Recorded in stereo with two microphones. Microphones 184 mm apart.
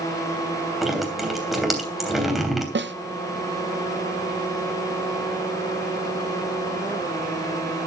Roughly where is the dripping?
Centre.